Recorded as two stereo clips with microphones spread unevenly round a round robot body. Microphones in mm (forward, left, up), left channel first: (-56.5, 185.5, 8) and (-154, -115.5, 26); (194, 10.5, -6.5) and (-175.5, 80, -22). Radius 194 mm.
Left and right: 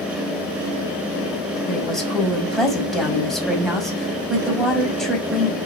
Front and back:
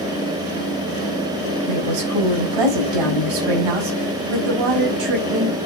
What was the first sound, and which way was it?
A woman speaking, 160° left.